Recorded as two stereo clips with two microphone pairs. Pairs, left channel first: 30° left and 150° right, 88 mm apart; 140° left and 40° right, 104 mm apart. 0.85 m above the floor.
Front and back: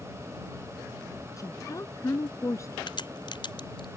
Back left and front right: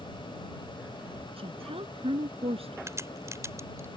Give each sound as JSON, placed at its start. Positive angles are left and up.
{"t": 1.4, "sound": "a woman speaking", "azimuth_deg": -20}
{"t": 2.9, "sound": "a crack", "azimuth_deg": 20}